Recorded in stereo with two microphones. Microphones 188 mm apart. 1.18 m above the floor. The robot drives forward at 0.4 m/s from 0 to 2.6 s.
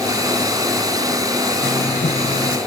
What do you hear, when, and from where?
1.6 s writing: 70° left (ahead or behind); by 2.6 s 65° left (ahead or behind)